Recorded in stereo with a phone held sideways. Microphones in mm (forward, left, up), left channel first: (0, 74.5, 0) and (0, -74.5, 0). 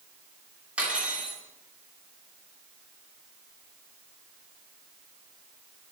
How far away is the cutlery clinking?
About 2.5 m.